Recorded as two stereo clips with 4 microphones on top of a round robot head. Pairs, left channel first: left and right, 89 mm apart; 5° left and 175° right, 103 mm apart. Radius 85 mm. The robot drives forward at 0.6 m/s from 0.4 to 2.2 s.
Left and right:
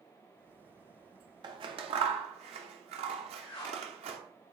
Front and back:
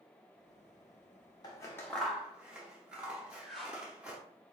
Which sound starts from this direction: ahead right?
Scissors, at 1.4 s.